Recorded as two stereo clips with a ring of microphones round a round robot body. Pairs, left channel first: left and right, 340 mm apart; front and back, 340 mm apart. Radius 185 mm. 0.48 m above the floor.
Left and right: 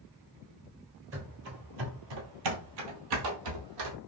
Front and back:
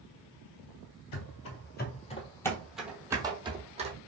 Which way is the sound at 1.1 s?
35° right.